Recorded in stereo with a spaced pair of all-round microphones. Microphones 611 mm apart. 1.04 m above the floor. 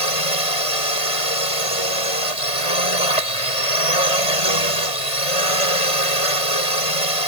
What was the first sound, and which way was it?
A drone, 60° left (ahead or behind).